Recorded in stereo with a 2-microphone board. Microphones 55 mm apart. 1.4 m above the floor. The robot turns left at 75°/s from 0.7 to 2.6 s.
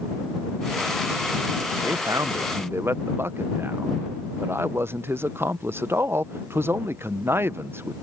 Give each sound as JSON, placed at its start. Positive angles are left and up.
{"t": 1.8, "sound": "a man speaking", "azimuth_deg": -75}